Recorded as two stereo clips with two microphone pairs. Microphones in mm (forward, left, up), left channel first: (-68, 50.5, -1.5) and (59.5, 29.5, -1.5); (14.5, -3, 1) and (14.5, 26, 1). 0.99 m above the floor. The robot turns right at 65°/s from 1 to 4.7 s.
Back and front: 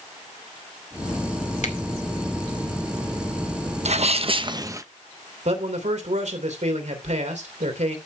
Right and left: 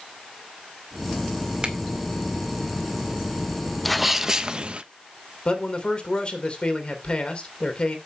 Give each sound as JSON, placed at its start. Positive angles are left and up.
{"t": 1.6, "sound": "a finger snap", "azimuth_deg": 150, "distance_m": 2.0}
{"t": 3.9, "sound": "a sneeze", "azimuth_deg": 0, "distance_m": 1.1}
{"t": 5.5, "sound": "a man speaking", "azimuth_deg": -35, "distance_m": 3.0}